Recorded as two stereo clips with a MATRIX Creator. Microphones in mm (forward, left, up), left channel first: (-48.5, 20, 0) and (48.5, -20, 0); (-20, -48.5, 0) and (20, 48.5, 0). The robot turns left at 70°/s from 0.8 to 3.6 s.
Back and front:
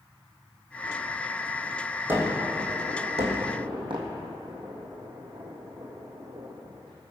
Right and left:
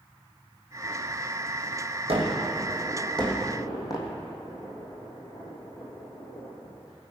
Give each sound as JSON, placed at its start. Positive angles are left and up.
{"t": 2.1, "sound": "a gunshot", "azimuth_deg": 45, "distance_m": 2.5}